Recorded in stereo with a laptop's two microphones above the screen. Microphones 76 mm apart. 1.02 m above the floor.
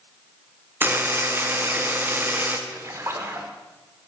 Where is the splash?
35° right (ahead or behind), 0.7 m.